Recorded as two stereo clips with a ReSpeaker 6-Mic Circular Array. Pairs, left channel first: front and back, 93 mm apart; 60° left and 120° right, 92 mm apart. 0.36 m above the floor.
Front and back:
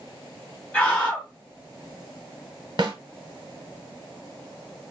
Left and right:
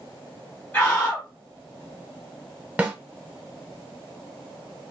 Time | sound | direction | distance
0.7 | a scream | 40° left | 0.9 m
2.8 | a snare drum | 165° left | 0.8 m